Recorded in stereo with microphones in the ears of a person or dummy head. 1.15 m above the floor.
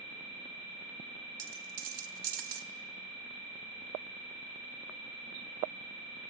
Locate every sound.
1.4 s a dropped coin: 55° right (ahead or behind), 1.5 m